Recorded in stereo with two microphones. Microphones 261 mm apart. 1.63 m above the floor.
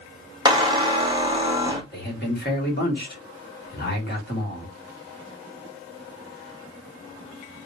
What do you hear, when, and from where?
0.5 s a squeak: 15° right (ahead or behind), 0.7 m
1.9 s a man speaking: 35° left (ahead or behind), 1.5 m